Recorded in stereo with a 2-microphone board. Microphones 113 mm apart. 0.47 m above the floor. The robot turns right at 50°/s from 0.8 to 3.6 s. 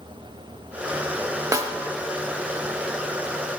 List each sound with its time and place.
1.5 s a snare drum: 30° right (ahead or behind), 0.6 m; by 1.8 s 20° right (ahead or behind), 0.6 m